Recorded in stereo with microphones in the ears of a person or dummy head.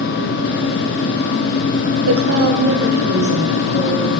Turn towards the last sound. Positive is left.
turn(degrees=-50)  # may be behind; listen again after turning